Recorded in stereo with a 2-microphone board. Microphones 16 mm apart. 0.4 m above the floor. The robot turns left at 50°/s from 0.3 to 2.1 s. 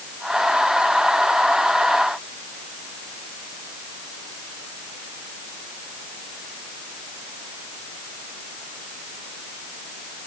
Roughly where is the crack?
No crack in this recording.